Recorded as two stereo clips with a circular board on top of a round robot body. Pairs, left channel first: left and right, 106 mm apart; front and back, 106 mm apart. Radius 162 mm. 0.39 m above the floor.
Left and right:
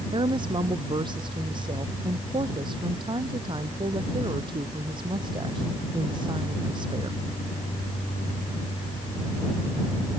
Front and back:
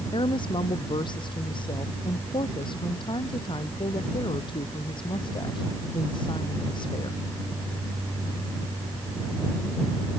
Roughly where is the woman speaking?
Ahead right.